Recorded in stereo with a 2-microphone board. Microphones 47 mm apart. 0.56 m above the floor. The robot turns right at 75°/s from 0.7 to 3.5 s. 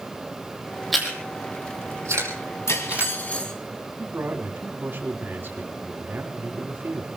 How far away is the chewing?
About 5 m.